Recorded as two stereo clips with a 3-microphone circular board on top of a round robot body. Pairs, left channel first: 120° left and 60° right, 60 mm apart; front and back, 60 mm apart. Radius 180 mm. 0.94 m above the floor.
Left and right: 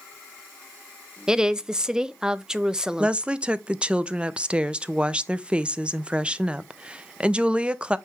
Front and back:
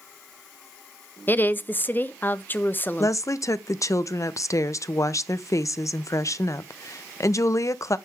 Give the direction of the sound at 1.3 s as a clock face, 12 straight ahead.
12 o'clock.